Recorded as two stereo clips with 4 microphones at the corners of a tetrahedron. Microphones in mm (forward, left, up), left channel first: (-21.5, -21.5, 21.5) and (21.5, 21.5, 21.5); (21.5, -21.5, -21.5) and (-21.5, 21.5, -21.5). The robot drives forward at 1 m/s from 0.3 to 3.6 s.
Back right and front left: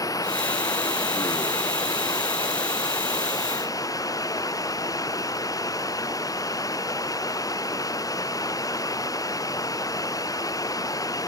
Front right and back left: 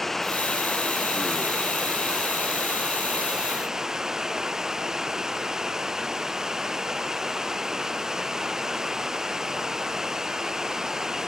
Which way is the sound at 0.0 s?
130° right.